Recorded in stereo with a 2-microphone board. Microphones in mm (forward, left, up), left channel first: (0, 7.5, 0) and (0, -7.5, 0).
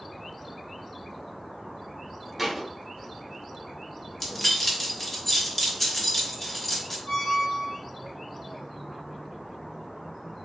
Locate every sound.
2.4 s a thud: centre (ahead or behind), 1.2 m
4.2 s keys jangling: 15° left (ahead or behind), 0.9 m
7.1 s a squeak: 55° left (ahead or behind), 1.0 m